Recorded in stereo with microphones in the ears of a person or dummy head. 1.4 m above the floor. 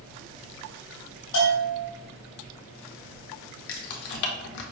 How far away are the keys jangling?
About 0.5 m.